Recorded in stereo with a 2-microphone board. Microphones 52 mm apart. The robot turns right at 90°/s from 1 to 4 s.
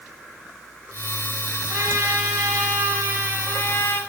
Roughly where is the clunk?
I don't hear a clunk.